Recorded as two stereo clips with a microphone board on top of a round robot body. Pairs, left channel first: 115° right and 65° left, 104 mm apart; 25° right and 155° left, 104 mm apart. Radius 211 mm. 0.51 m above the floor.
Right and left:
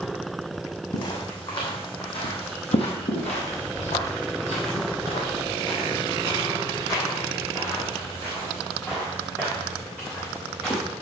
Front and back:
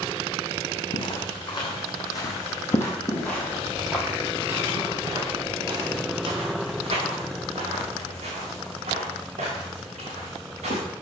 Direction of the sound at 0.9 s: 65° right.